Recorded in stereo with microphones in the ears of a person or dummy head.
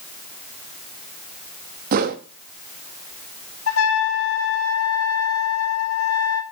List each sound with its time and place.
1.9 s a whoosh: 50° right (ahead or behind), 1.0 m
3.7 s a trumpet: 75° left (ahead or behind), 1.4 m